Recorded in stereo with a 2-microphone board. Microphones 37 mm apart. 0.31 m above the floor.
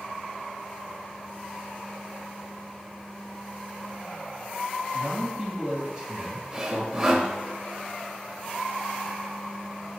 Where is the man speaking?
20° right (ahead or behind), 2.5 m.